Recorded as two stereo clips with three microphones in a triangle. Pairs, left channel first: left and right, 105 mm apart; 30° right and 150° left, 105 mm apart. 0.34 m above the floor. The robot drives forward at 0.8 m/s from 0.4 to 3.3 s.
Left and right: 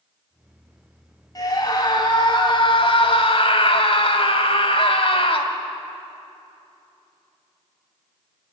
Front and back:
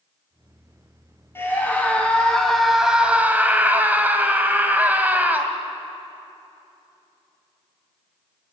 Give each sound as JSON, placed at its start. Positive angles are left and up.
{"t": 1.4, "sound": "a scream", "azimuth_deg": 35, "distance_m": 2.5}